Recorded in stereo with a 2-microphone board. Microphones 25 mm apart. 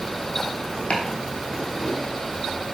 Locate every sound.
0.9 s chopping: 85° left, 1.0 m